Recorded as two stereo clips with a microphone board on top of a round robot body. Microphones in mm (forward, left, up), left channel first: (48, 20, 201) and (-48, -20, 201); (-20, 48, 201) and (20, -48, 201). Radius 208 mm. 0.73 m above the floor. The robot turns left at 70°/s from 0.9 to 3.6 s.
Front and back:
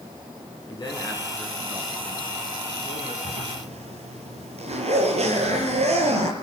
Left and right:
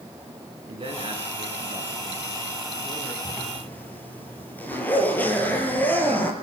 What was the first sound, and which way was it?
A man speaking, 30° right.